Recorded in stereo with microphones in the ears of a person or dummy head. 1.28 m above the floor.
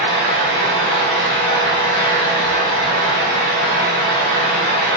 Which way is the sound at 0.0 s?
30° left (ahead or behind).